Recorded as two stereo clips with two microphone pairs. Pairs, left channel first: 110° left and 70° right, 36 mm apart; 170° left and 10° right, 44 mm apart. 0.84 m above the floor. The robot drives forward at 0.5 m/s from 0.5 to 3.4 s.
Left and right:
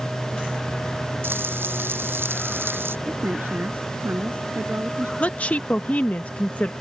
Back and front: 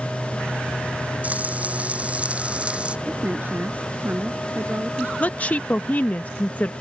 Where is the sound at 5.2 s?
140° left.